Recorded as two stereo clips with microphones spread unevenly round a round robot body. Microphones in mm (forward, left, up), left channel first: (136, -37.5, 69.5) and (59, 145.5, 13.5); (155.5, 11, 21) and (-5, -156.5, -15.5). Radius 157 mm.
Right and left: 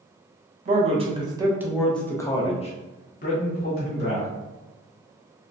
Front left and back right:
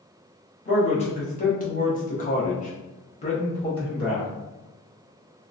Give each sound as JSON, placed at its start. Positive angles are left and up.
{"t": 0.7, "sound": "a man speaking", "azimuth_deg": 115, "distance_m": 1.0}